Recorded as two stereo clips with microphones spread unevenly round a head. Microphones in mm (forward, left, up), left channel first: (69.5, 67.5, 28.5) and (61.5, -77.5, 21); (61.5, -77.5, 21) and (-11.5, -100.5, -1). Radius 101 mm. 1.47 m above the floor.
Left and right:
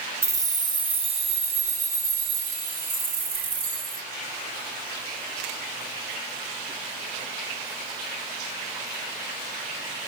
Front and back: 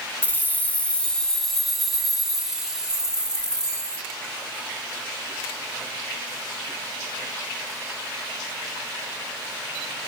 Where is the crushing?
I don't hear crushing.